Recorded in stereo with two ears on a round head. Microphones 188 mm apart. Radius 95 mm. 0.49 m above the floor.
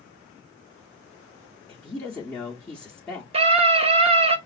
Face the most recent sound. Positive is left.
turn(degrees=-30)  # may be behind; listen again after turning